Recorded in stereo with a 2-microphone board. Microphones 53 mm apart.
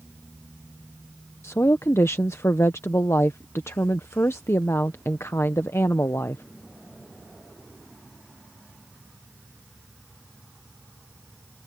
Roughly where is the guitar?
No guitar in this recording.